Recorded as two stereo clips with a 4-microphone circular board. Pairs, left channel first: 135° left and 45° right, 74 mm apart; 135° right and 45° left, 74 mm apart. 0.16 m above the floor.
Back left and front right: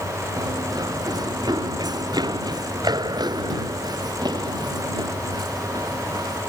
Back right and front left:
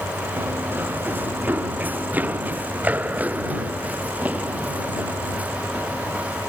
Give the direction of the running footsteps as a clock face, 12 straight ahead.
1 o'clock.